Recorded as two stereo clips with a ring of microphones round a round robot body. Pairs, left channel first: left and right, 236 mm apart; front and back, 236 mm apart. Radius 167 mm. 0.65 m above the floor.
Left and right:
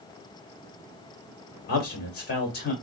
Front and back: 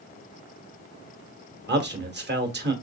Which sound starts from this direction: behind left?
A man speaking, at 1.7 s.